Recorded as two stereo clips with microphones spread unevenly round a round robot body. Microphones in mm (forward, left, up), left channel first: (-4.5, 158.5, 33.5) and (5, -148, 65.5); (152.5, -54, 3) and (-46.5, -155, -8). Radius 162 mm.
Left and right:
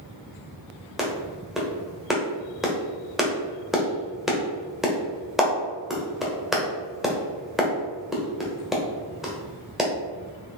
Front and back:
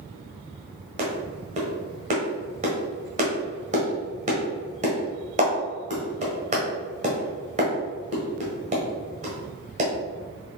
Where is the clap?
175° left, 1.3 m.